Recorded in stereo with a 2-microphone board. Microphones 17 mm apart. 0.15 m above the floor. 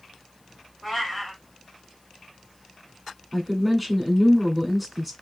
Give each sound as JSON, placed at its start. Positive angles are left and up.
{"t": 0.8, "sound": "a cat meowing", "side_deg": 0, "distance_m": 1.8}
{"t": 3.3, "sound": "a woman speaking", "side_deg": 0, "distance_m": 1.1}